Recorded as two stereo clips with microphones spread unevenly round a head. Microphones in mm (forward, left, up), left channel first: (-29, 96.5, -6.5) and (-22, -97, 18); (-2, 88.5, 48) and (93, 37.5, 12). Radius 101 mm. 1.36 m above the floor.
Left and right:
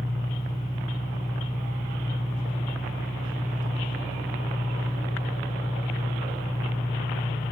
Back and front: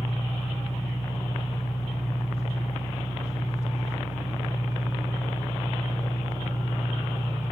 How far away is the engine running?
About 5.5 m.